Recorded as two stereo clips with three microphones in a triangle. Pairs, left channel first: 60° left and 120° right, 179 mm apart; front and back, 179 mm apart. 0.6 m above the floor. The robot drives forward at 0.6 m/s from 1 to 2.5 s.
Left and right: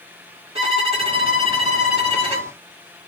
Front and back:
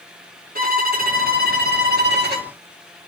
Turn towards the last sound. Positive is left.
turn(degrees=-175)